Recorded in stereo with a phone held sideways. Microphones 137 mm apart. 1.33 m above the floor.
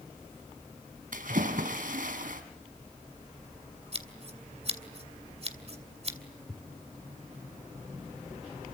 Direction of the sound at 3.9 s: 45° right (ahead or behind).